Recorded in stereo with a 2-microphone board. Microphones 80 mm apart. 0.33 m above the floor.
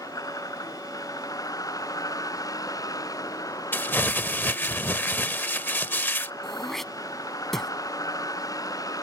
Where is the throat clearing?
5° left (ahead or behind).